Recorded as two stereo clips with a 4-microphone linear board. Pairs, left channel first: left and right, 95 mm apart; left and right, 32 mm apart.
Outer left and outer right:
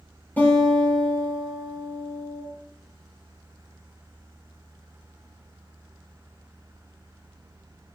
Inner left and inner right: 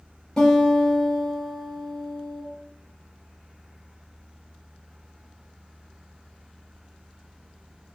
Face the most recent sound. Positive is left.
turn(degrees=20)  # may be behind; listen again after turning